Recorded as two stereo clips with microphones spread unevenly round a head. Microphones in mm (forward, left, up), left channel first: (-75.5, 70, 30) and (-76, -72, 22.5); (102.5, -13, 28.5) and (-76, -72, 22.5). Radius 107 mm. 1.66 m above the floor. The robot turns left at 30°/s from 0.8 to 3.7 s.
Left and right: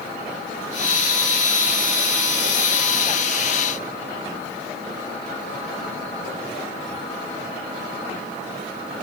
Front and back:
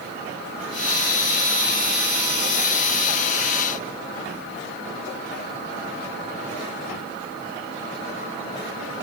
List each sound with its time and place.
Only background noise.